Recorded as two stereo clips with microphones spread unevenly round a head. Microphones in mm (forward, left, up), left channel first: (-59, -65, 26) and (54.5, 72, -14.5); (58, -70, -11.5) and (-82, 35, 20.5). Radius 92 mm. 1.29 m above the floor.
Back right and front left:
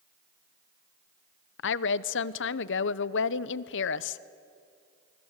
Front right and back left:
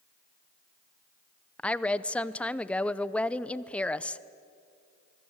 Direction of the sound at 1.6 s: 110° right.